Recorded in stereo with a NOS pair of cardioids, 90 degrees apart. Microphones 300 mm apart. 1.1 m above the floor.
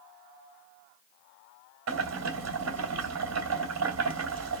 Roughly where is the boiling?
Ahead right.